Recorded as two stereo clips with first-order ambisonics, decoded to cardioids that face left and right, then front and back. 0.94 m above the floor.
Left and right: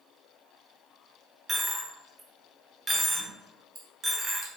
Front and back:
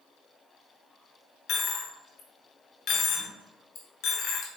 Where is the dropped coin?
20° right, 1.1 m.